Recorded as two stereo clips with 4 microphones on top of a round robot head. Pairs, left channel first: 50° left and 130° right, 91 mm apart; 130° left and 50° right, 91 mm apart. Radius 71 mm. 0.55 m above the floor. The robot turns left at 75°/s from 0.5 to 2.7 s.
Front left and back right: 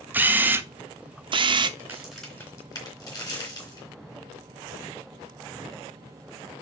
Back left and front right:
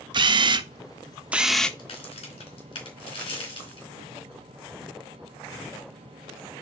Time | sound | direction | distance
0.1 | a camera shutter | 60° right | 0.8 m
1.8 | a crack | 170° left | 3.5 m